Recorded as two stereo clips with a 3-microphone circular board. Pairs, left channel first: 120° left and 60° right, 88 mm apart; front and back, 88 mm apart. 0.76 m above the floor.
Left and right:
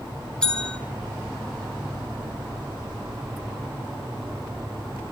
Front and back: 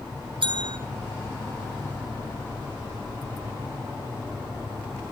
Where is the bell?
160° right, 2 m.